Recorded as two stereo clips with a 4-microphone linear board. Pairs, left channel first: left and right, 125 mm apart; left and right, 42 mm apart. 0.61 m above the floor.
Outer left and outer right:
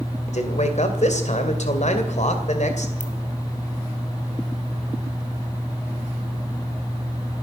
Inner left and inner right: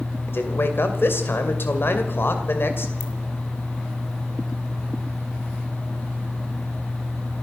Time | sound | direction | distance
0.3 | a man speaking | 70° left (ahead or behind) | 2.5 m
3.0 | a ringtone | 85° left | 2.5 m